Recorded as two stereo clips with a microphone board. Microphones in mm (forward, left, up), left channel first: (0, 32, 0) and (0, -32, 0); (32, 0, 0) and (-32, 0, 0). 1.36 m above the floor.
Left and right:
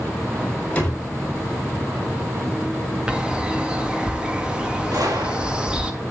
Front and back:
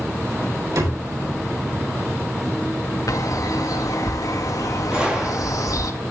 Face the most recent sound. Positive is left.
turn(degrees=-105)